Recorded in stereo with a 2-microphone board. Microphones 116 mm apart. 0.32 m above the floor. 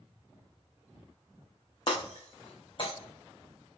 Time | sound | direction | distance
1.9 | breaking glass | 45° left (ahead or behind) | 3.5 m